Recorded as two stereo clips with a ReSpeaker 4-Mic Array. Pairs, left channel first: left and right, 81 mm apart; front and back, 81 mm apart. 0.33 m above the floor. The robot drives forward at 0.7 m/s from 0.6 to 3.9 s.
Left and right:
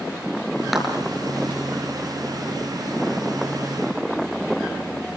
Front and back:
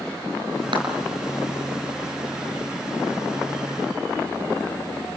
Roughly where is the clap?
Behind.